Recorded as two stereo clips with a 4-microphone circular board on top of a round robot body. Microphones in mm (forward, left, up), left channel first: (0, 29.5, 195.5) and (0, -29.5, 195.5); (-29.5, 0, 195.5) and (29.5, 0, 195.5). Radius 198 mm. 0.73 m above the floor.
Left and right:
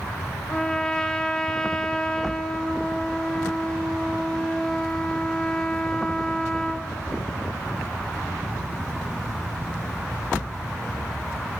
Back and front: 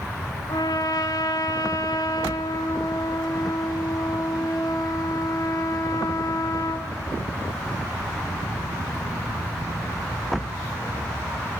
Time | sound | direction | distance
0.5 | a trumpet | 170° left | 1.2 m